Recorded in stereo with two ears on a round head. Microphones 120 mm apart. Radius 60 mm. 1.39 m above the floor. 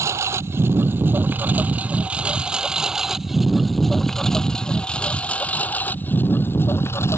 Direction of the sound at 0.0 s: 20° right (ahead or behind).